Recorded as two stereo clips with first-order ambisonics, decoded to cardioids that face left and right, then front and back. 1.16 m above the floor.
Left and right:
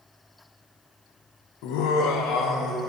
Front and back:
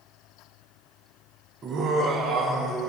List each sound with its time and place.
1.6 s laughter: 115° left, 0.6 m; by 2.9 s 130° left, 1.3 m